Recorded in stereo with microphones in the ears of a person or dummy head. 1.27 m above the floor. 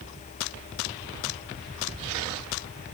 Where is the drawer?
I don't hear a drawer.